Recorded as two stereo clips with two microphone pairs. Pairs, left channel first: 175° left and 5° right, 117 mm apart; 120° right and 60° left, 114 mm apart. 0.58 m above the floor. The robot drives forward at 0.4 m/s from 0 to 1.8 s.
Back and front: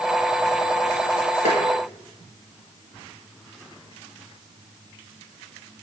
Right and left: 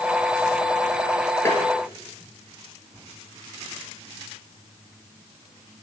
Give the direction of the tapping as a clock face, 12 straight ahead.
6 o'clock.